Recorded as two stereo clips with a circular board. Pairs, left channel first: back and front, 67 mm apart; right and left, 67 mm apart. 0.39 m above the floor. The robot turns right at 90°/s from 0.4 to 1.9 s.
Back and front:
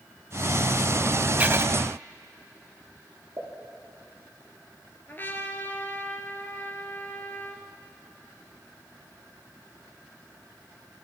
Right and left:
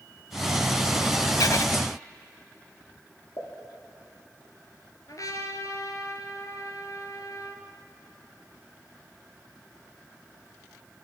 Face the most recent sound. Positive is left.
turn(degrees=-120)